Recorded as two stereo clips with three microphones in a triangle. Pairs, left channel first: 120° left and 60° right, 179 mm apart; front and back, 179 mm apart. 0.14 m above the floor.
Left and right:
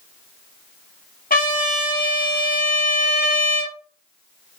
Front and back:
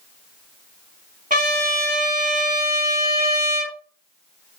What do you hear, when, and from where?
1.3 s a trumpet: 145° left, 2 m